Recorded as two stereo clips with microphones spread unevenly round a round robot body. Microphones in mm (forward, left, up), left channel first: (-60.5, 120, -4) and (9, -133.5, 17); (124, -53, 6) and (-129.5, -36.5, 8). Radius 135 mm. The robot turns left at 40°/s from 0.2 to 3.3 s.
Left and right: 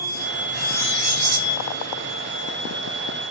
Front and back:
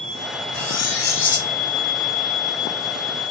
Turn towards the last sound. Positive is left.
turn(degrees=-130)